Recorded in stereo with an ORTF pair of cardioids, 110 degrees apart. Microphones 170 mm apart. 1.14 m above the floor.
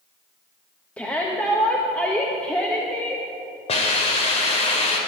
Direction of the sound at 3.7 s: 35° left.